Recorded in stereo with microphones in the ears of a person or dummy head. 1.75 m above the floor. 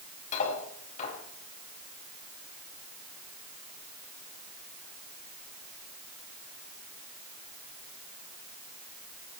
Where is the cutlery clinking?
45° left (ahead or behind), 6 m.